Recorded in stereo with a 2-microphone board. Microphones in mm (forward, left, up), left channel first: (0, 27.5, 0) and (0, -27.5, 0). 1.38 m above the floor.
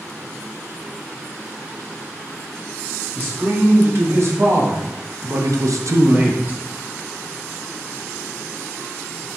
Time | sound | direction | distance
3.1 | a man speaking | 40° right (ahead or behind) | 1.6 m